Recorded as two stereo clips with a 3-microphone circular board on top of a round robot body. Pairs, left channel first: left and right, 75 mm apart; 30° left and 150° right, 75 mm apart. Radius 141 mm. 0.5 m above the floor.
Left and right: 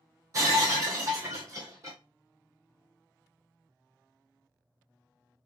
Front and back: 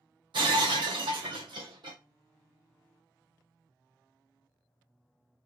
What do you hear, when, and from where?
0.3 s breaking glass: 135° right, 0.9 m